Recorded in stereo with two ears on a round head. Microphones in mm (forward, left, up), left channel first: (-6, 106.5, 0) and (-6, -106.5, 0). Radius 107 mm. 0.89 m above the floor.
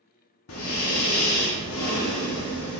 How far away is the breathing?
About 1.0 m.